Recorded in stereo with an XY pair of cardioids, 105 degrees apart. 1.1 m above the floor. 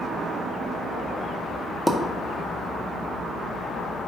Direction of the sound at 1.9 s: 5° left.